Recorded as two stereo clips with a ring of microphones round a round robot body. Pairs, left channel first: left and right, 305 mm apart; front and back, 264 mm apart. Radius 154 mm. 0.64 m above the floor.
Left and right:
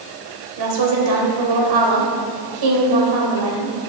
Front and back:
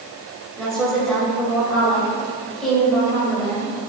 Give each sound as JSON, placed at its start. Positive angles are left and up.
{"t": 0.6, "sound": "a woman speaking", "azimuth_deg": -90, "distance_m": 2.5}